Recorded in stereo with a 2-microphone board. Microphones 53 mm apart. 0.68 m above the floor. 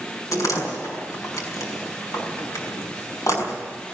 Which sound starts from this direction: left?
A door slam, at 0.3 s.